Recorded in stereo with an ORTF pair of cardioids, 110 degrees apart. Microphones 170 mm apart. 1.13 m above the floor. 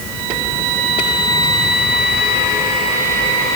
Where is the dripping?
No dripping in this recording.